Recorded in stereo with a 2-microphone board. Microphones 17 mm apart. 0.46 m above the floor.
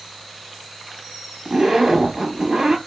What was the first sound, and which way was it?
A zipper, 15° right (ahead or behind).